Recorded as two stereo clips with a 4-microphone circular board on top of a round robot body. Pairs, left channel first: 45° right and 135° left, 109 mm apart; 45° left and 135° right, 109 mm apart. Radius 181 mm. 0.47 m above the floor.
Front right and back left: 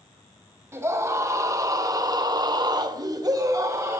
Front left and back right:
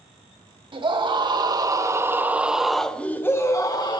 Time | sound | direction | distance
0.7 | a scream | 165° right | 2.5 m